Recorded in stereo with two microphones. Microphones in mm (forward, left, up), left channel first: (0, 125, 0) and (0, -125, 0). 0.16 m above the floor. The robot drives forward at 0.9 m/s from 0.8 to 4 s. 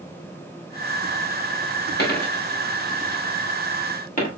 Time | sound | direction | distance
2.0 | a dropped coin | 40° left (ahead or behind) | 6 m